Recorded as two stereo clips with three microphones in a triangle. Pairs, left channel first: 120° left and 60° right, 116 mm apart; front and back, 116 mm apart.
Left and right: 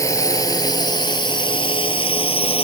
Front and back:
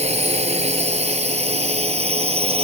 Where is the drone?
Straight behind; by 2.6 s 150° left.